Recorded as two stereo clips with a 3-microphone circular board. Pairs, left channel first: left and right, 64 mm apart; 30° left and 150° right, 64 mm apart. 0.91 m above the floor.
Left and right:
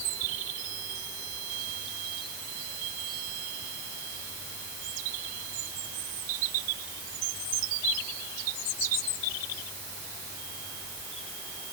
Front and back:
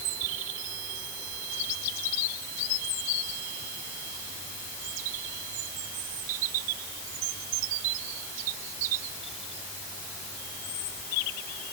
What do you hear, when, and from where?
Only background noise.